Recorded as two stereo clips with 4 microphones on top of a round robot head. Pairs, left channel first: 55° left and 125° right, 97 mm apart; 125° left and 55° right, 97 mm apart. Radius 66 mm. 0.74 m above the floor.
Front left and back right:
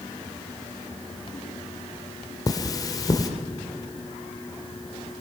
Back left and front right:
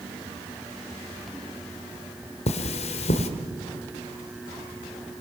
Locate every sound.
2.5 s cutlery clinking: 110° left, 1.6 m